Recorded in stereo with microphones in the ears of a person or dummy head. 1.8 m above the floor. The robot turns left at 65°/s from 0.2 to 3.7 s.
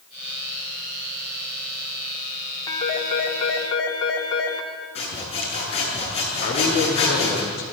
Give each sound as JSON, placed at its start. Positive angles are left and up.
{"t": 2.7, "sound": "a phone ringing", "azimuth_deg": 155, "distance_m": 2.5}
{"t": 5.0, "sound": "sawing", "side_deg": 35, "distance_m": 8.0}
{"t": 6.4, "sound": "a man speaking", "side_deg": 55, "distance_m": 5.0}